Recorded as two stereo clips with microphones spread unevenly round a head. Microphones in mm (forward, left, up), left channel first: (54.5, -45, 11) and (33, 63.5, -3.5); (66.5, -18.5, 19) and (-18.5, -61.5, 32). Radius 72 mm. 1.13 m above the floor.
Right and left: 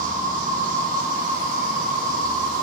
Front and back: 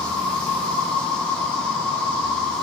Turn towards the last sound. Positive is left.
turn(degrees=110)